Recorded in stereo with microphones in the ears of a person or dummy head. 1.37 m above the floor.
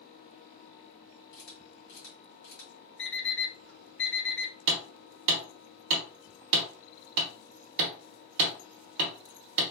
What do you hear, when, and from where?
1.3 s a camera shutter: 65° left (ahead or behind), 1.7 m
3.0 s an alarm clock: 60° left (ahead or behind), 1.9 m
4.7 s hammering: 55° right (ahead or behind), 0.9 m